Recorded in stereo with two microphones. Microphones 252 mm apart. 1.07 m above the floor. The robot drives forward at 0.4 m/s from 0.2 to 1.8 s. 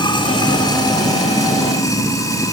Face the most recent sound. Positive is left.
turn(degrees=15)  # may be behind; listen again after turning